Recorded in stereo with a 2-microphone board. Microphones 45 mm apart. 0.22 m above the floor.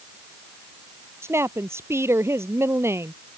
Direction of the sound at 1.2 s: 70° right (ahead or behind).